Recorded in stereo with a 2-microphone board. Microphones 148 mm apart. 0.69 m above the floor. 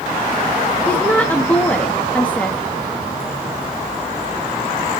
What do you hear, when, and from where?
0.9 s a woman speaking: 10° left (ahead or behind), 1.1 m